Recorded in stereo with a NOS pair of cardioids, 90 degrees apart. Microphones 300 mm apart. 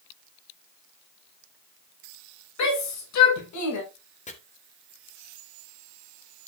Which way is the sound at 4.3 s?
25° left.